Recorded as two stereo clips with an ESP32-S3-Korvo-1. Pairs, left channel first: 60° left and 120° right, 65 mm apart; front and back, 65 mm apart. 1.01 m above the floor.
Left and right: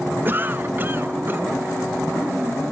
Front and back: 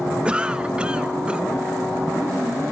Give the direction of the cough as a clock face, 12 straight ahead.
4 o'clock.